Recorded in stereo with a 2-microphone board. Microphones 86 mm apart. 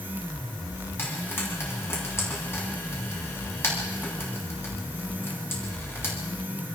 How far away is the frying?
About 8.5 m.